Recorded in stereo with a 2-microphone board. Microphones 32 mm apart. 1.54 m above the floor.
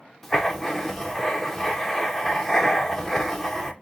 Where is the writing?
5° left (ahead or behind), 0.7 m.